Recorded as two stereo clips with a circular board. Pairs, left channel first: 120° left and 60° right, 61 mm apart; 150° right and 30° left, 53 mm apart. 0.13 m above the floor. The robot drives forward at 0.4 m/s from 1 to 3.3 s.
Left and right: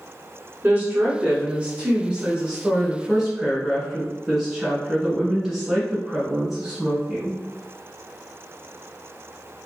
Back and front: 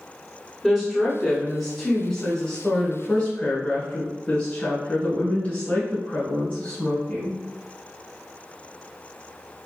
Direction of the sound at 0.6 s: 45° right.